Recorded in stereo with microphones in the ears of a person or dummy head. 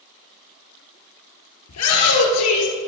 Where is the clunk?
No clunk in this recording.